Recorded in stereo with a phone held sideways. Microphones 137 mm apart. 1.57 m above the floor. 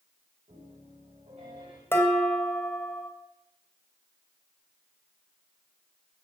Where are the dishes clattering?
15° left (ahead or behind), 2.5 m.